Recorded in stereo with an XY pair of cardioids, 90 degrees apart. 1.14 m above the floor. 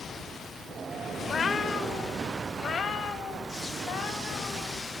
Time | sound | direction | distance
1.2 | a cat meowing | 40° left | 1.9 m